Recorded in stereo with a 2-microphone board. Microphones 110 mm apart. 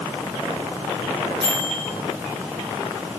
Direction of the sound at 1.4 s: 40° right (ahead or behind).